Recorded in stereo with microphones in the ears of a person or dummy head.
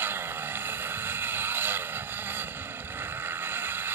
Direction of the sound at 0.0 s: 10° right (ahead or behind).